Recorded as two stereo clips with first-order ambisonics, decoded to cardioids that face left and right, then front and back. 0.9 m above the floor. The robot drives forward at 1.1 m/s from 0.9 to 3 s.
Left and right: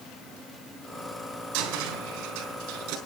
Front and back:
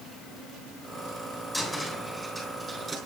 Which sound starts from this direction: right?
A cupboard door, at 1.5 s.